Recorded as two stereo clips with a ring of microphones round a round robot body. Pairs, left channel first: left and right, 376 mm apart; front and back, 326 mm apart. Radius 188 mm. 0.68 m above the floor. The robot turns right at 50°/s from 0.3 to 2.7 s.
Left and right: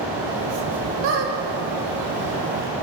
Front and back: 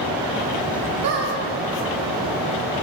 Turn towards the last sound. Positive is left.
turn(degrees=-60)